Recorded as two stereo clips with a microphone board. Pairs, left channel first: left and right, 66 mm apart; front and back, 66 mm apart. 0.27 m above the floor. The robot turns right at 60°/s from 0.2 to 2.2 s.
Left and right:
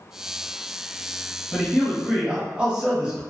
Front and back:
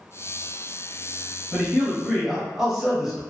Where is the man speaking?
155° right, 0.9 m; by 3.2 s 110° right, 0.9 m.